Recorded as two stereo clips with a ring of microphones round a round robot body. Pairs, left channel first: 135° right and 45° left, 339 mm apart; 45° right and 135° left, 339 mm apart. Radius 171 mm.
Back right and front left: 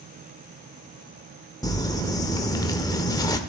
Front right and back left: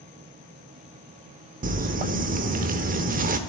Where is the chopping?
No chopping in this recording.